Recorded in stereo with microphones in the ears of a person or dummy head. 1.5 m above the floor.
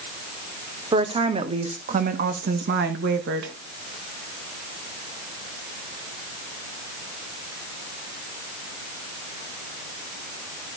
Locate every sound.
0.9 s a woman speaking: 25° right (ahead or behind), 1.7 m; by 3.5 s 70° right (ahead or behind), 1.9 m